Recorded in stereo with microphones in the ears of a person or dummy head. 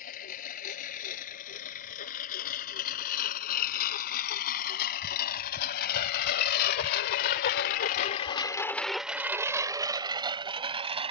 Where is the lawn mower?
50° left (ahead or behind); by 11.1 s 25° right (ahead or behind).